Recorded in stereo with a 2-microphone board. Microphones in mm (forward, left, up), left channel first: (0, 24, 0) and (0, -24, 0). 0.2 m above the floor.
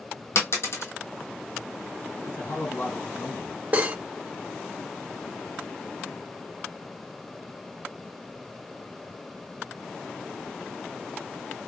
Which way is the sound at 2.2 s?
50° left (ahead or behind).